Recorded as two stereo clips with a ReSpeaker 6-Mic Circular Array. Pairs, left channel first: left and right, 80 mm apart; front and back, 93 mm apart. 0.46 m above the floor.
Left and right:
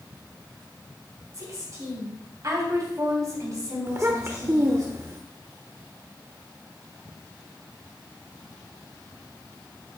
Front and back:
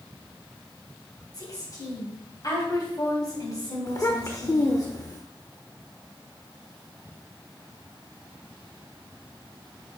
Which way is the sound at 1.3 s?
40° right.